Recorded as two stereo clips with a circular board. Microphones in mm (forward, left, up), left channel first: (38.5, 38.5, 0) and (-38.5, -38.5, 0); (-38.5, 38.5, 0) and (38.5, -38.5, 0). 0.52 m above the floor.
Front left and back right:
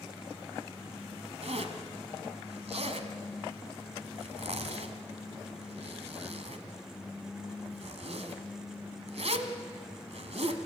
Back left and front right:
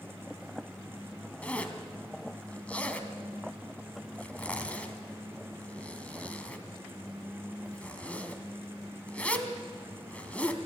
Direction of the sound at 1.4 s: 145° right.